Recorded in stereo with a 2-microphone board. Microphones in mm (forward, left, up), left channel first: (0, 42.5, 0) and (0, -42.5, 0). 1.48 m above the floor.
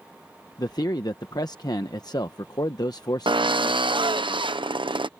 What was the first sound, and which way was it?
A man speaking, 55° left (ahead or behind).